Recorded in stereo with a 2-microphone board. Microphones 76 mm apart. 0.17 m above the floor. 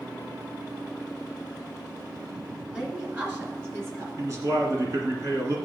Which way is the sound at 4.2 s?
45° right (ahead or behind).